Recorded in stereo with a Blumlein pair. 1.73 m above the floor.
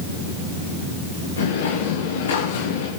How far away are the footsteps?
About 8 m.